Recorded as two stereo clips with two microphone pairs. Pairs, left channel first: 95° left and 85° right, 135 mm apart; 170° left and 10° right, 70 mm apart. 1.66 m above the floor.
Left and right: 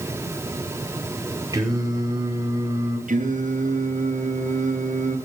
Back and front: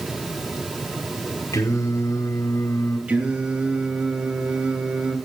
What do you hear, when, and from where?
1.5 s singing: 150° right, 5.5 m
3.1 s singing: 80° right, 9.5 m